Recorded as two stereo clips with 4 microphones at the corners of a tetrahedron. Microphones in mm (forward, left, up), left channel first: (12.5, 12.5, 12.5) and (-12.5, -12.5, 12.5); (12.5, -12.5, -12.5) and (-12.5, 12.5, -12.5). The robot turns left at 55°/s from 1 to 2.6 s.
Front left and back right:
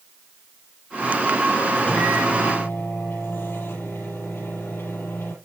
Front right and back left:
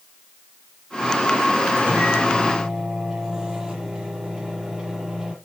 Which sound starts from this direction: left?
A microwave, at 1.8 s.